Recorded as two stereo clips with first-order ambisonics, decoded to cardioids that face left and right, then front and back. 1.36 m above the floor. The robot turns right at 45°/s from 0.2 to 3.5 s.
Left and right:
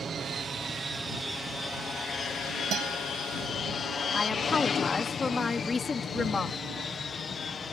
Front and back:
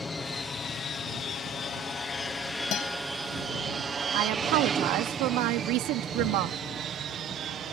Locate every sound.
0.0 s an aircraft: 60° right; by 7.7 s 150° left
2.7 s a guitar: 40° right; by 3.0 s 30° right
4.1 s a woman speaking: 165° left